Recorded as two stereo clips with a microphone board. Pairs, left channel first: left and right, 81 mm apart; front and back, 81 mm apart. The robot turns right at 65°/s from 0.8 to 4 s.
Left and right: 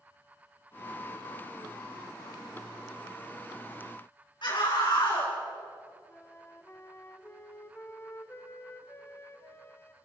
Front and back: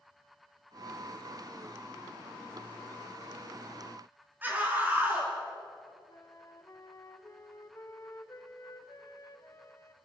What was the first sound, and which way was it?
A scream, 115° left.